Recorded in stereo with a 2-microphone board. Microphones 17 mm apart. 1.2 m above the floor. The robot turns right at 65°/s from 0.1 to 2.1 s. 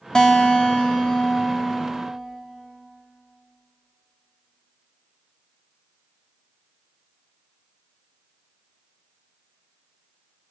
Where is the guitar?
45° left, 2.5 m; by 2.1 s 170° left, 2.5 m.